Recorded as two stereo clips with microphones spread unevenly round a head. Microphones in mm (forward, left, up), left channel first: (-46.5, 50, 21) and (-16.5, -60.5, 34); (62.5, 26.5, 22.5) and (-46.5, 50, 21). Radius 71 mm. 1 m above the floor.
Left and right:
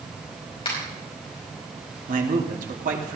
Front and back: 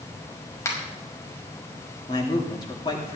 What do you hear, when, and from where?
0.7 s a finger snap: 50° left, 5.5 m
2.1 s a man speaking: 70° right, 2.5 m